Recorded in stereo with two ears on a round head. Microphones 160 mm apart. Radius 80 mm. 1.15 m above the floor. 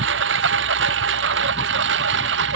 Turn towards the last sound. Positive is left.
turn(degrees=-75)  # may be behind; listen again after turning